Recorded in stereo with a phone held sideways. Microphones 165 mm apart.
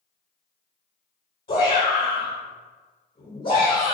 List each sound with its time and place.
1.5 s a shout: 60° left (ahead or behind), 1.6 m